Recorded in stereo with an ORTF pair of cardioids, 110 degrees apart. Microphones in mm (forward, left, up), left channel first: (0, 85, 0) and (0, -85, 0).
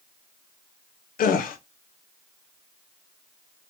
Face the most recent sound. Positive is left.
turn(degrees=55)